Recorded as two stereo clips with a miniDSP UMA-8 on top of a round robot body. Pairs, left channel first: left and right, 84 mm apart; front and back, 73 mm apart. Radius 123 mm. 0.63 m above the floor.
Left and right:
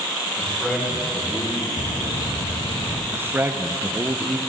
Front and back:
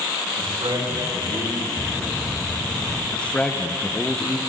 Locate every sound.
0.4 s a man speaking: 165° left, 5.5 m
1.8 s a bird: 75° left, 2 m
3.1 s a man speaking: 55° right, 1.0 m